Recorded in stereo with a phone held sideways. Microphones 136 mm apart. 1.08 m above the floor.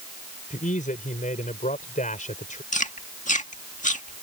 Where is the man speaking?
85° left.